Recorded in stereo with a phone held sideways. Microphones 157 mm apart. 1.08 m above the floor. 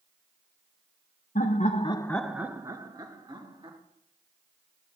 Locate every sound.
1.4 s laughter: 55° left (ahead or behind), 1.0 m; by 3.8 s 30° right (ahead or behind), 2.5 m